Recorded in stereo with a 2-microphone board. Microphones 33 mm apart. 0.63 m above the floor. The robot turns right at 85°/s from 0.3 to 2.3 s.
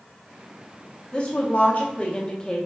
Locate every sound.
1.1 s a woman speaking: 40° left, 0.9 m; by 2.7 s 140° left, 0.9 m